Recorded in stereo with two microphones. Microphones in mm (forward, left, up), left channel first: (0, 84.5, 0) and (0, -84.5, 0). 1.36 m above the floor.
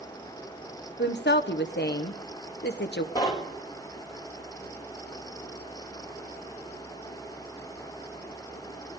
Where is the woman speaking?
70° left (ahead or behind), 0.8 m.